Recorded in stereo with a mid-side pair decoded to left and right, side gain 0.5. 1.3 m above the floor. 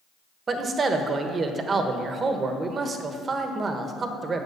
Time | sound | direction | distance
0.5 | a man speaking | 40° right | 1.1 m